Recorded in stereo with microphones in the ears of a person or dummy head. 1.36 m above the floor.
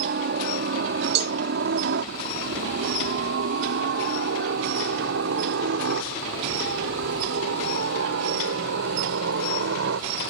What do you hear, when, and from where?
0.0 s a helicopter: 50° right (ahead or behind); by 10.3 s 65° right (ahead or behind)
1.1 s a cowbell: 60° right (ahead or behind)